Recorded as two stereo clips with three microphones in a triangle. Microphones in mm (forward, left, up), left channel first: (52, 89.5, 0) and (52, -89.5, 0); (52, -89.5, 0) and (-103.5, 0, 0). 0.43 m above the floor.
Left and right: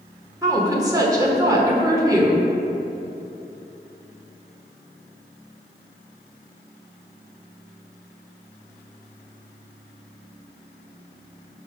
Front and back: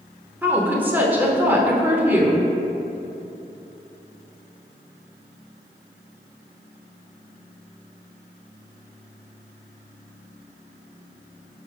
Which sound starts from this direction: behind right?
A woman speaking, at 0.4 s.